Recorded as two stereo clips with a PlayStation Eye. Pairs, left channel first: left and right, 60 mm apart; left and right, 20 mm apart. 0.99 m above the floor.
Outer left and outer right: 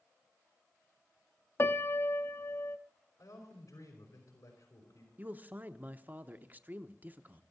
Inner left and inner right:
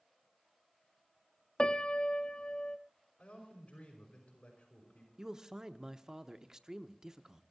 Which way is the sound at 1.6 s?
45° left (ahead or behind).